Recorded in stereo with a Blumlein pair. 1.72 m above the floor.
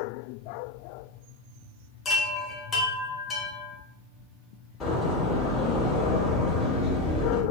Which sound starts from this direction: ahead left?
A door slam, at 4.8 s.